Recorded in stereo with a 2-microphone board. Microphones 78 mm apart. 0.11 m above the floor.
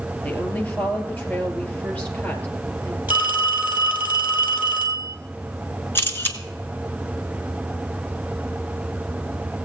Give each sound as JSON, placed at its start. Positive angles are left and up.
{"t": 0.2, "sound": "a woman speaking", "side_deg": 20, "distance_m": 2.0}
{"t": 3.1, "sound": "a phone ringing", "side_deg": -20, "distance_m": 1.8}
{"t": 6.0, "sound": "a camera shutter", "side_deg": 25, "distance_m": 1.4}